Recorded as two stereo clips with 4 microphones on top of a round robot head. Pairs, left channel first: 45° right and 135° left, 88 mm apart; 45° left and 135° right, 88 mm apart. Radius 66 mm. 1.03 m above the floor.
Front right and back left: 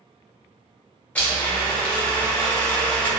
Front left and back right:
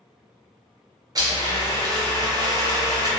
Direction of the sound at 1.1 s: 110° right.